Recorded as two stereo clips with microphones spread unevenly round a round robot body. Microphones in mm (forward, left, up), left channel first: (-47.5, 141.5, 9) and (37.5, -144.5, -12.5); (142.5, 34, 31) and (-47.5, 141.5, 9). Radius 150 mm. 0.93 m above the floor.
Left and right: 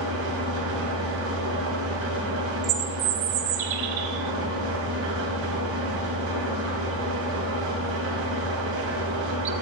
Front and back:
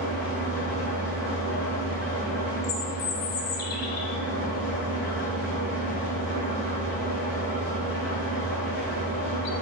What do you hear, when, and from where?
0.0 s an engine running: 120° right, 2 m
2.6 s a bird: 60° right, 0.6 m